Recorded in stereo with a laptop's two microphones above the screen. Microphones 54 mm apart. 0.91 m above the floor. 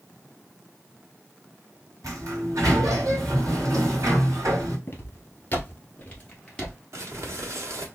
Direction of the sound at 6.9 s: 60° right (ahead or behind).